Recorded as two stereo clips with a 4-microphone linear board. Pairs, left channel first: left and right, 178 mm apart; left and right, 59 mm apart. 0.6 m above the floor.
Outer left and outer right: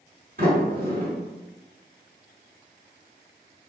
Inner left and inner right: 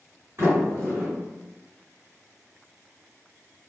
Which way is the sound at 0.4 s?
55° right (ahead or behind).